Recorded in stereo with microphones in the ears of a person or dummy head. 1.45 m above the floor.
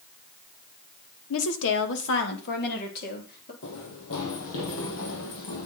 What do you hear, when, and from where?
1.3 s a woman speaking: 85° left, 1.7 m; by 3.5 s 50° left (ahead or behind), 4 m
3.6 s running footsteps: 70° left (ahead or behind), 4.5 m; by 5.7 s 60° left (ahead or behind), 3.5 m